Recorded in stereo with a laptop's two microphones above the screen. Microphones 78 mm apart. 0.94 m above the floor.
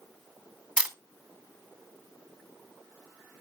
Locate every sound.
0.8 s a camera shutter: 15° right (ahead or behind), 1.1 m